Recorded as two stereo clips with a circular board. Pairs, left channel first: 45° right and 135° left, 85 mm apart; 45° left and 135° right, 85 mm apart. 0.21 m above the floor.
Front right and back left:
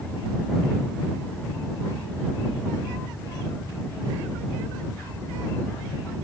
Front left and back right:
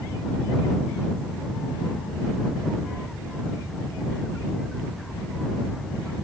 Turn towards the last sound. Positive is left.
No sound to turn to.